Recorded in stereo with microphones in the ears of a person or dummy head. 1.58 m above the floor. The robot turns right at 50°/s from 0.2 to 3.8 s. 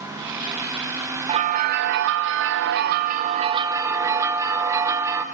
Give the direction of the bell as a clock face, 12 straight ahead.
5 o'clock.